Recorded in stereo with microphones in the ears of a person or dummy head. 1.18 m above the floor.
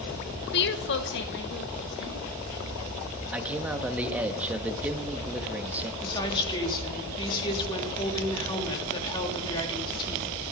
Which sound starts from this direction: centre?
A man speaking, at 3.3 s.